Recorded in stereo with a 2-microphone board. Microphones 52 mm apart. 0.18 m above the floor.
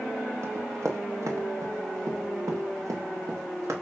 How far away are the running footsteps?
About 2.0 m.